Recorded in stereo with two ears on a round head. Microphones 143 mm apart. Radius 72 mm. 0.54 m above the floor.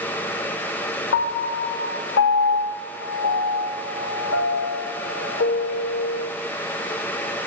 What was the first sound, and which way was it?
A piano, 85° left.